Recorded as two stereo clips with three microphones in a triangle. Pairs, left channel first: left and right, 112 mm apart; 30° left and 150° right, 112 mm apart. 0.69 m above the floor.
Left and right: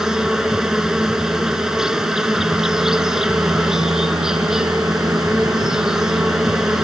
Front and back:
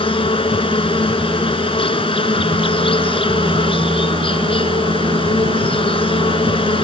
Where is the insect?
5° right.